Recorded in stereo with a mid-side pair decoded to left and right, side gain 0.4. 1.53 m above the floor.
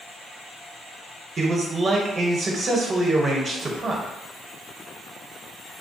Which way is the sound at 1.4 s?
40° right.